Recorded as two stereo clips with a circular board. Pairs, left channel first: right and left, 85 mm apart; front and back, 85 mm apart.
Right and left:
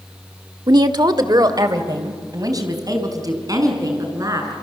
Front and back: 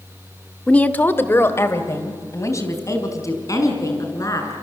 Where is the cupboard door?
No cupboard door in this recording.